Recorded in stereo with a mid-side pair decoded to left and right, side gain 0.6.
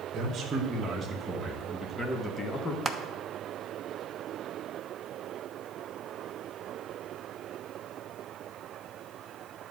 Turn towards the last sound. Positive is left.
turn(degrees=-15)